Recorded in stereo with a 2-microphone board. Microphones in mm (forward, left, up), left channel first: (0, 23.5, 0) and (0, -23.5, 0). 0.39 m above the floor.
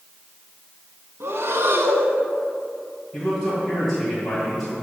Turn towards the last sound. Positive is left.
turn(degrees=10)  # may be behind; listen again after turning